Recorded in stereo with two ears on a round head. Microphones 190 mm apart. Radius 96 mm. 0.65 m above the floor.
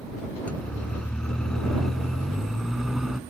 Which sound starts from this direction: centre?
A siren, at 0.5 s.